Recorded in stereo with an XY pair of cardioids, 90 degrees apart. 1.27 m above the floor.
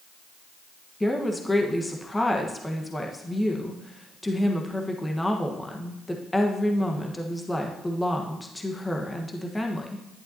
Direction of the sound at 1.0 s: 15° left.